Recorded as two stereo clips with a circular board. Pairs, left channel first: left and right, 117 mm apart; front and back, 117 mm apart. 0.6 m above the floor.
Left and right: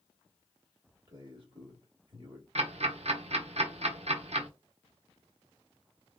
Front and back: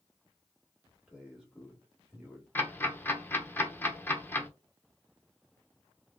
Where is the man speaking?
100° right, 1.7 m.